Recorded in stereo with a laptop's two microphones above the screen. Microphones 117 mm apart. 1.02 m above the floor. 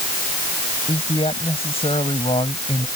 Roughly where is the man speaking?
Left.